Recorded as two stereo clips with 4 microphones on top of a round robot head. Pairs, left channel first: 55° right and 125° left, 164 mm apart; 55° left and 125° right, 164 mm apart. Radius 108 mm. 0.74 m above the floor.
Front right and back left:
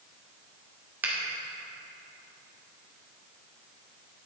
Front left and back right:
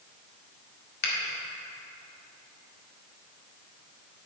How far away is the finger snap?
About 1.8 m.